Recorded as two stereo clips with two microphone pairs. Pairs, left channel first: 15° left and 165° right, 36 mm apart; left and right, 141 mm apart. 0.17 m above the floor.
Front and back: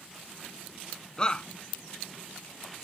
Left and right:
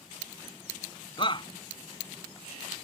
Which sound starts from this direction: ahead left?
A shout, at 1.2 s.